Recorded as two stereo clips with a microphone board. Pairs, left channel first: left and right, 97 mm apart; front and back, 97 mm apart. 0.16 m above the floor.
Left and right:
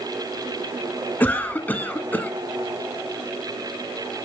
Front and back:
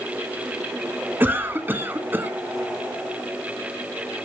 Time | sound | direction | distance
1.2 | a cough | 140° left | 1.4 m